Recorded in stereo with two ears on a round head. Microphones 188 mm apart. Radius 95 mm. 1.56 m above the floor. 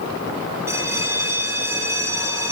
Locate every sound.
0.7 s a bell: 15° right (ahead or behind), 1.9 m